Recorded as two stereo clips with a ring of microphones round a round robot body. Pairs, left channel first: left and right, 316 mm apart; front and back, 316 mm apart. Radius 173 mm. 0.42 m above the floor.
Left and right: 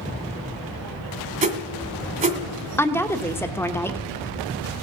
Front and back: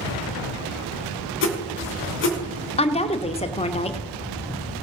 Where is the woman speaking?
20° left, 0.8 m.